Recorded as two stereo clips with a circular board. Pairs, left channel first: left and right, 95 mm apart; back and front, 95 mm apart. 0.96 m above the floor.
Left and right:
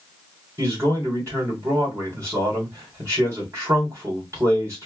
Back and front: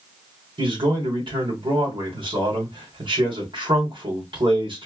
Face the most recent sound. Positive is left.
turn(degrees=-30)